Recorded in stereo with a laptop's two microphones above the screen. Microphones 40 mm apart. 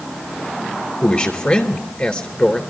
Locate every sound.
1.0 s a man speaking: 20° left (ahead or behind), 3 m